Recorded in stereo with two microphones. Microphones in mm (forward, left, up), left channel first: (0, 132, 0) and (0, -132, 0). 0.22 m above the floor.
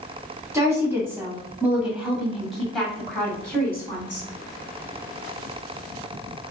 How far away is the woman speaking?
About 1.8 m.